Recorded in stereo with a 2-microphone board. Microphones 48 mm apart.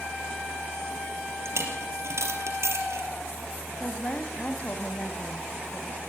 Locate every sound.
1.4 s a dropped coin: 70° right (ahead or behind), 4 m
3.8 s a woman speaking: 35° left (ahead or behind), 2 m